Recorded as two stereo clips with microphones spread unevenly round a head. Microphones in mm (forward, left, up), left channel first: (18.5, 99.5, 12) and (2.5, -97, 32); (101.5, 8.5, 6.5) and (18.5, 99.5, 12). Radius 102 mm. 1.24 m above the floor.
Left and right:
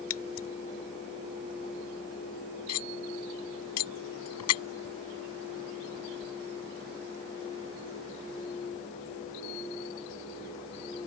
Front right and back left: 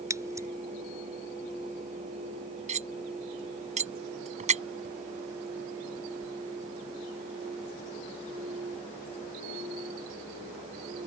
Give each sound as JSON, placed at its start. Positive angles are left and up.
{"t": 0.1, "sound": "scissors", "azimuth_deg": 65}
{"t": 2.7, "sound": "cutlery clinking", "azimuth_deg": 105}